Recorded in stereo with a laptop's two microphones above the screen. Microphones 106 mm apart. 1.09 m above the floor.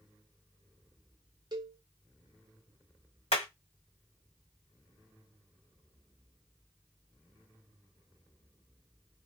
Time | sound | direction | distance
1.5 | a cowbell | 40° right (ahead or behind) | 0.7 m
3.3 | hammering | 70° left (ahead or behind) | 1.9 m